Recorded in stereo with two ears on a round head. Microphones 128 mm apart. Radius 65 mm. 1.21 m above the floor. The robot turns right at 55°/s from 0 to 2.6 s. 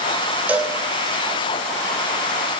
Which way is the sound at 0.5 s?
10° right (ahead or behind).